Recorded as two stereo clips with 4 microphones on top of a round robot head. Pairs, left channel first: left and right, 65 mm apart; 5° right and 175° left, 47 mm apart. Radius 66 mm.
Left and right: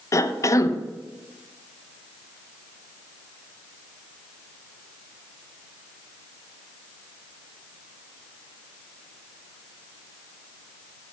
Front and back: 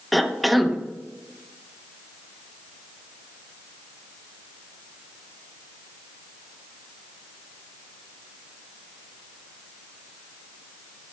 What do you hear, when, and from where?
0.1 s a cough: 80° left, 0.8 m